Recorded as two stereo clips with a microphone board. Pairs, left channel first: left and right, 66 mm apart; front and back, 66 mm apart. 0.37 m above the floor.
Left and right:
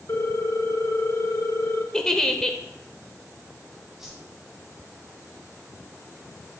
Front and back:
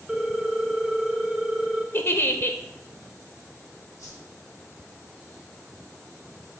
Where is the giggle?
15° left, 0.6 m.